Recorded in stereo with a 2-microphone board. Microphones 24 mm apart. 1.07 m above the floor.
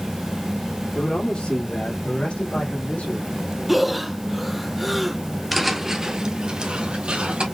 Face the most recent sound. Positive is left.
turn(degrees=-60)  # may be behind; listen again after turning